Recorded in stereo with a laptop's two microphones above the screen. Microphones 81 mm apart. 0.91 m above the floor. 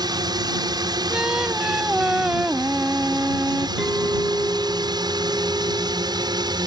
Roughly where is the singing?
Centre.